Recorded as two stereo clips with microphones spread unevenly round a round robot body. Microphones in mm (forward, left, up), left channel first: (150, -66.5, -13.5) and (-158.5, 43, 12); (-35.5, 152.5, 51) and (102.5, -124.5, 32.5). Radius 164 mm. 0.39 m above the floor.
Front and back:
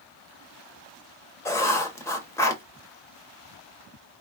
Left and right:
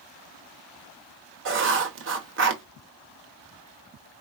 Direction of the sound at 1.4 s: 95° right.